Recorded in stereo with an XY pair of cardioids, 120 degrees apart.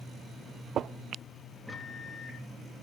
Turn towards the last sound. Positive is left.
turn(degrees=5)